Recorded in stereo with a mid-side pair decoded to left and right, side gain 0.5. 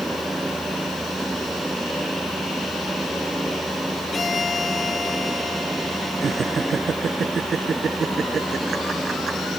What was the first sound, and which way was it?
A fan, 15° right.